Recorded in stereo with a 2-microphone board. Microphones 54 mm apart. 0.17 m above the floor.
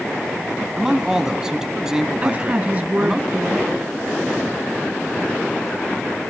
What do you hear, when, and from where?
0.8 s a man speaking: 10° right (ahead or behind), 1.3 m
2.2 s a woman speaking: 30° right (ahead or behind), 1.8 m